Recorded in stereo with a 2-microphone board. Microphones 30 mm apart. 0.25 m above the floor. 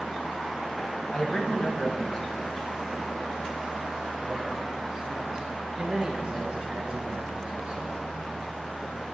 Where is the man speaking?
40° left (ahead or behind), 1.4 m; by 8.1 s 25° right (ahead or behind), 3.5 m.